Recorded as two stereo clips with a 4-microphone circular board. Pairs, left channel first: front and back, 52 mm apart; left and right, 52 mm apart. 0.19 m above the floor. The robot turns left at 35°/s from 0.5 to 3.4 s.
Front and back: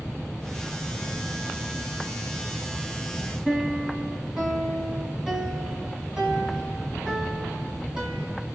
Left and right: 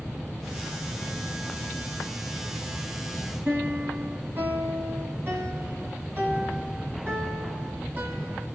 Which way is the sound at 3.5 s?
105° right.